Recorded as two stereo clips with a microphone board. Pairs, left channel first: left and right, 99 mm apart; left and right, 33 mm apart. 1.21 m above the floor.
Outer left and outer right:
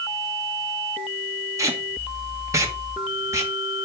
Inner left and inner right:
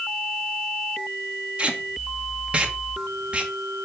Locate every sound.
1.6 s tape being pulled: 30° right (ahead or behind), 1.4 m